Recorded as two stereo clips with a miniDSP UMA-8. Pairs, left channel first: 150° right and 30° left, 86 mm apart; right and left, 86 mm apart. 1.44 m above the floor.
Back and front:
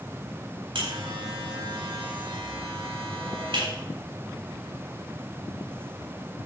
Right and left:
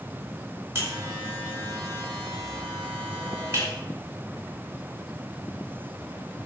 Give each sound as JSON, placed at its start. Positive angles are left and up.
{"t": 0.8, "sound": "a buzzer", "azimuth_deg": 30, "distance_m": 4.0}